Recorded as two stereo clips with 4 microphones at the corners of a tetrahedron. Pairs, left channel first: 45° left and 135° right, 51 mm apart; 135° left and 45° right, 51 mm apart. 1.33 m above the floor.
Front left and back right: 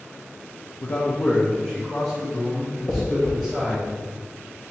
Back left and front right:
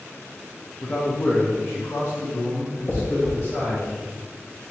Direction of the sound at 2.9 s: 90° left.